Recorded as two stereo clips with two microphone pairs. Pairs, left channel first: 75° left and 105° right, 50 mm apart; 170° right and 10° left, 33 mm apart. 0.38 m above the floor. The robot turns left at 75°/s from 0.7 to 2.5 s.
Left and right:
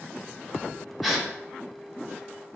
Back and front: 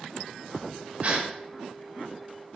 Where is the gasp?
15° right, 0.9 m; by 1.3 s 35° right, 0.9 m.